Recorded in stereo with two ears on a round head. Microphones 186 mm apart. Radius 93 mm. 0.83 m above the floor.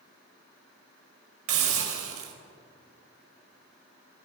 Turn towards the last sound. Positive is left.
turn(degrees=-75)  # may be behind; listen again after turning